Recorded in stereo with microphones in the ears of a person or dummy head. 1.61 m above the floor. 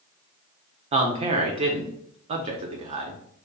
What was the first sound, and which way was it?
A man speaking, 35° right (ahead or behind).